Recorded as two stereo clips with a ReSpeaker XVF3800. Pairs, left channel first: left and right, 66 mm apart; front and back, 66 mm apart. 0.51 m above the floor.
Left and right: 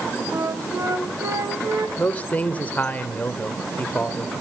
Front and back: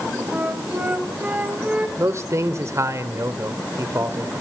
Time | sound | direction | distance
0.3 | a flute | 115° right | 3 m
2.0 | a man speaking | 150° left | 1.7 m